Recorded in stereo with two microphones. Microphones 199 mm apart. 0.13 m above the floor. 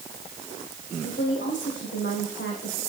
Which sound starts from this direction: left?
A woman speaking, at 1.0 s.